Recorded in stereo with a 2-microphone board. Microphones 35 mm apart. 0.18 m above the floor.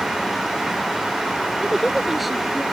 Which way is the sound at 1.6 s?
10° right (ahead or behind).